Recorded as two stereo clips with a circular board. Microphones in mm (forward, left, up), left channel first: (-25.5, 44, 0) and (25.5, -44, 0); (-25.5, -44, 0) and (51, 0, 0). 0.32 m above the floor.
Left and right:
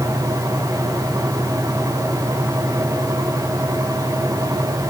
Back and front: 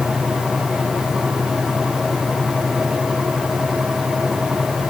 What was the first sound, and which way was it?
Only background noise.